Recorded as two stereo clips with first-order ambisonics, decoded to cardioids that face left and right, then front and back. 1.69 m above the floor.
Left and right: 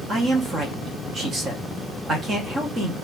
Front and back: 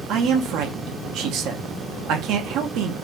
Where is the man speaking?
155° right, 0.7 m.